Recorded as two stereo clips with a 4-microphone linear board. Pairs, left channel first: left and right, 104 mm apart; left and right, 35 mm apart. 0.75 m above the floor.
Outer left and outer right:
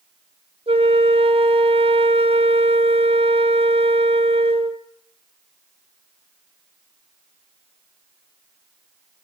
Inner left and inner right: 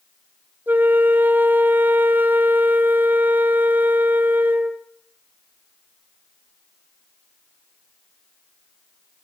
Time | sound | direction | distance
0.7 | a flute | 65° right (ahead or behind) | 1.0 m